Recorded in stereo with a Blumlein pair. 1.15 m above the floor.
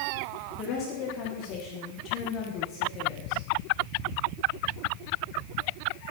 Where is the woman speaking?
35° left, 1.7 m.